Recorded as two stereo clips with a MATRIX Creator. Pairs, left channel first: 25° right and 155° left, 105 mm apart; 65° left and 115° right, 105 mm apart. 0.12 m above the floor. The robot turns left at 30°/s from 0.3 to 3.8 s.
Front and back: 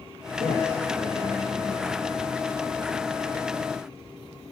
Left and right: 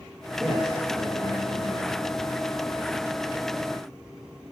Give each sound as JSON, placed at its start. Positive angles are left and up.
{"t": 0.4, "sound": "a man speaking", "azimuth_deg": -25, "distance_m": 6.0}